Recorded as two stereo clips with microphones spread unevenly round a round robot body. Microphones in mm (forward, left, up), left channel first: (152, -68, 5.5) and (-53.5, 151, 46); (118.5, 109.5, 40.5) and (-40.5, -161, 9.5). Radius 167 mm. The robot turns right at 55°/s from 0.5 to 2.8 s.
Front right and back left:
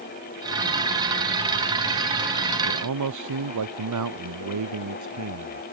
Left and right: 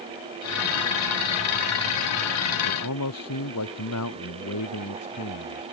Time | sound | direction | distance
2.6 | a man speaking | 100° left | ?